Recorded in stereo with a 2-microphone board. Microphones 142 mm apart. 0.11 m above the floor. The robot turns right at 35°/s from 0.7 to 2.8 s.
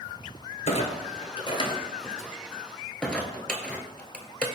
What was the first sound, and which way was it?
A clunk, 55° left (ahead or behind).